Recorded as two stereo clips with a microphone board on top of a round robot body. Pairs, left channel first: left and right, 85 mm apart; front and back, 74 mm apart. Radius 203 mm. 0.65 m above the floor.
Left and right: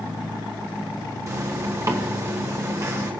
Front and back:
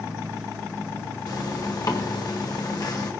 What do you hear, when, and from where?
1.3 s a zipper: 35° right, 1.4 m